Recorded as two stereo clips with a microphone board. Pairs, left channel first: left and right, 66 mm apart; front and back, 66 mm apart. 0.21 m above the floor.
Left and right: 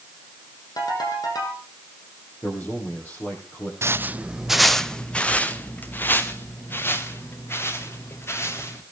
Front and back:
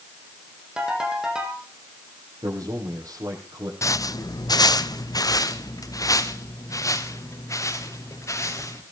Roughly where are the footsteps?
Ahead right.